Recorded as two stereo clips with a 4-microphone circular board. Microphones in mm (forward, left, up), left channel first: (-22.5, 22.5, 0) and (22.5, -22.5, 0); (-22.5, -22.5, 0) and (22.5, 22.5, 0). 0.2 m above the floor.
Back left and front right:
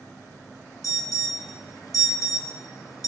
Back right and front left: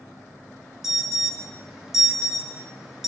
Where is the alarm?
125° left, 4 m.